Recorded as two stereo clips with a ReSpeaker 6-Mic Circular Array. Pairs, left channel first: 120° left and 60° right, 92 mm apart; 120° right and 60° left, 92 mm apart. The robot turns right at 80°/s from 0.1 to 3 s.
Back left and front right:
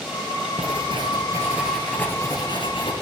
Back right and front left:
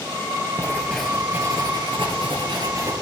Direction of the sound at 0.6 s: 65° right.